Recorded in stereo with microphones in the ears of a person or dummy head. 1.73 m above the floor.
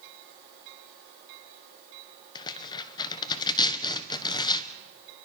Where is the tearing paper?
20° left (ahead or behind), 1.4 m.